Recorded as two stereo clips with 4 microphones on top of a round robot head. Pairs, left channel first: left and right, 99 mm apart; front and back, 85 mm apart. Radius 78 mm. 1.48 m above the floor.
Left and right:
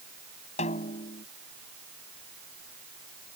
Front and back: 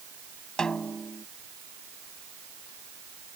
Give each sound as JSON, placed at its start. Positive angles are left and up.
{"t": 0.6, "sound": "a snare drum", "azimuth_deg": 80}